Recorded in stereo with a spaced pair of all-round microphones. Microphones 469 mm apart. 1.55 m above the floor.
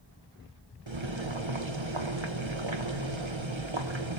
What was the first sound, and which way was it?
Boiling, 75° right (ahead or behind).